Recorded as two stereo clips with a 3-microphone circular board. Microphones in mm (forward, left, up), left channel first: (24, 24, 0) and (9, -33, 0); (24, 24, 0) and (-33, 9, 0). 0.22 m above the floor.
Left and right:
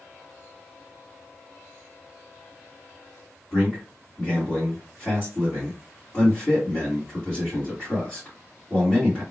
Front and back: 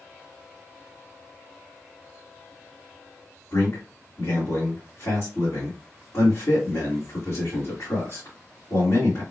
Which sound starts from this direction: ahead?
A man speaking, at 3.5 s.